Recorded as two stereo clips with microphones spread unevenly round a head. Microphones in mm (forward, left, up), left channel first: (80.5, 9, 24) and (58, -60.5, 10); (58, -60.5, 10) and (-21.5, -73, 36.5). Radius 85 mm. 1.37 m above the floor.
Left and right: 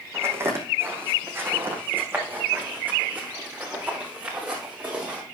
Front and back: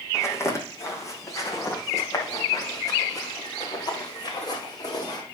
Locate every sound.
0.1 s footsteps: 50° right, 4 m; by 5.2 s 30° right, 6 m